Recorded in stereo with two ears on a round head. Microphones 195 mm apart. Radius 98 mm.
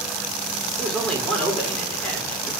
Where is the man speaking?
5° left (ahead or behind), 4 m.